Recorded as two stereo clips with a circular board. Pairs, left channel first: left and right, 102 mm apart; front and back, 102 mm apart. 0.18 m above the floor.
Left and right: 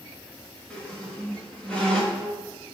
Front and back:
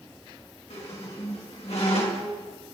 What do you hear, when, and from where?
0.7 s a squeak: 10° left, 2.5 m